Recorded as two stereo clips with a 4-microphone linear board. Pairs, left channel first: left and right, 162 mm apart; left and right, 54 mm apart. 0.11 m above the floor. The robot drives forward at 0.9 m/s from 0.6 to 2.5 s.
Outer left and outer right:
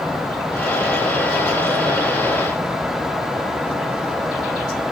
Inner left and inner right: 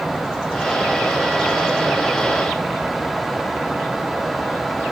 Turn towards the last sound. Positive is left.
No sound to turn to.